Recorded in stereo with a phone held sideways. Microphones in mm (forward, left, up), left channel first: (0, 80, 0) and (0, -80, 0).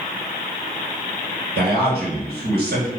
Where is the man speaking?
80° right, 1.4 m.